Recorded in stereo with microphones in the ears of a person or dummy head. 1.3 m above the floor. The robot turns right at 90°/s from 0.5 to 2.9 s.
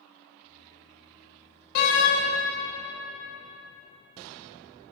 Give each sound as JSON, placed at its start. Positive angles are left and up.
{"t": 1.8, "sound": "a door slam", "azimuth_deg": 55, "distance_m": 0.9}